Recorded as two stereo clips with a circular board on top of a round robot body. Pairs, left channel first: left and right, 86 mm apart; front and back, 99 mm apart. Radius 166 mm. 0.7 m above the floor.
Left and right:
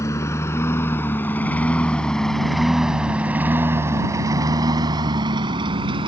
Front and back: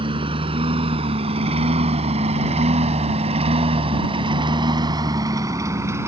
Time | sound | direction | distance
0.0 | a lawn mower | 145° left | ?